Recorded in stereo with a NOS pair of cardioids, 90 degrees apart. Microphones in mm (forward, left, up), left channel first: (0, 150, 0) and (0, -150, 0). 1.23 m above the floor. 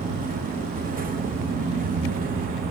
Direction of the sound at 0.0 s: 25° right.